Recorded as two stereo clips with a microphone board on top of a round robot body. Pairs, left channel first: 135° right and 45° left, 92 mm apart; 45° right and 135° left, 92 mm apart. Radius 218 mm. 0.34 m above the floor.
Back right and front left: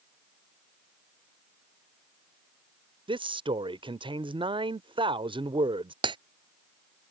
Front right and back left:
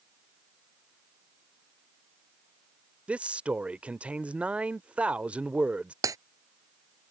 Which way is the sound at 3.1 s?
60° left.